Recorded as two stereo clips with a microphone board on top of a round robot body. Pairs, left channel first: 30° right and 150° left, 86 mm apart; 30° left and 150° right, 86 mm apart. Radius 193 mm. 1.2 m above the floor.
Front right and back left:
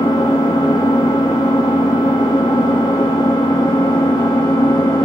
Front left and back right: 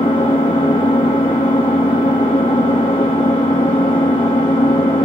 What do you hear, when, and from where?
0.0 s an engine running: 10° left, 0.9 m